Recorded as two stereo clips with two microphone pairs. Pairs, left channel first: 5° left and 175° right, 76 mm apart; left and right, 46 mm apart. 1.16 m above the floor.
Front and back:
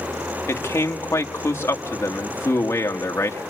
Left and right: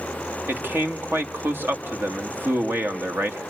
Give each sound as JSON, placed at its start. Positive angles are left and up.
{"t": 0.5, "sound": "a man speaking", "azimuth_deg": -50, "distance_m": 1.7}